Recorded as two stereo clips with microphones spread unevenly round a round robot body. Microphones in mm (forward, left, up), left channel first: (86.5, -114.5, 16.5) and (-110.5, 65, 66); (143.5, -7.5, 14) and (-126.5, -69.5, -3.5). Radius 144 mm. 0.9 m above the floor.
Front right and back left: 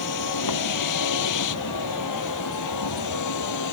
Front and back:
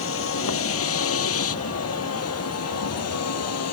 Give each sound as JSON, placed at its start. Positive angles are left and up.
{"t": 0.0, "sound": "a vehicle", "azimuth_deg": -30}